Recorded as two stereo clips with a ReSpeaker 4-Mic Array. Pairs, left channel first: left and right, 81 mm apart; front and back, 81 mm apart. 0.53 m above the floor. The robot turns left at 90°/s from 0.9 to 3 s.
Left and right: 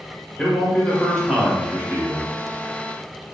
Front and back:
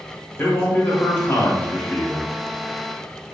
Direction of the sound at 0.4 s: 30° left.